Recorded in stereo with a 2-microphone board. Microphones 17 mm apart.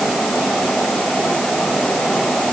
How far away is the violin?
I don't hear a violin.